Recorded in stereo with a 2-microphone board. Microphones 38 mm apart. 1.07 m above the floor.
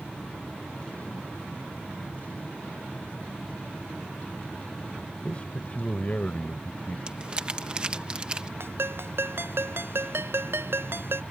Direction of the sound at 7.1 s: 25° right (ahead or behind).